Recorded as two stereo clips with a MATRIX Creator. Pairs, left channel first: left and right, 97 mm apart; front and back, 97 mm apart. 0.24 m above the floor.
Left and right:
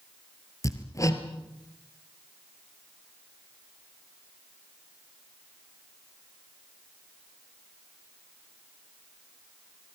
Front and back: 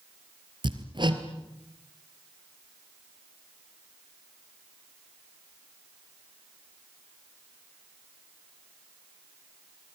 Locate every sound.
0.6 s hammering: 145° left, 2.5 m